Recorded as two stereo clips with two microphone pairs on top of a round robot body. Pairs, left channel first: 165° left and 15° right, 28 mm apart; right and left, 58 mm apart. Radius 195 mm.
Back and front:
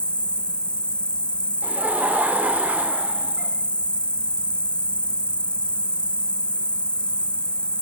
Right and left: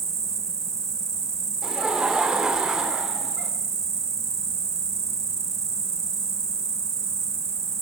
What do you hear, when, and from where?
0.0 s an insect: 120° left, 0.8 m
1.6 s laughter: 10° left, 2 m